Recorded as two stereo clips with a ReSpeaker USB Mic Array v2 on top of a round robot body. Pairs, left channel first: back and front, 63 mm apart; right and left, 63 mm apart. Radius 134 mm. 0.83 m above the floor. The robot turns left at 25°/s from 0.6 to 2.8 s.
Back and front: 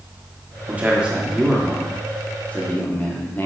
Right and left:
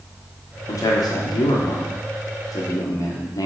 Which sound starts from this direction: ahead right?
A man speaking, at 0.7 s.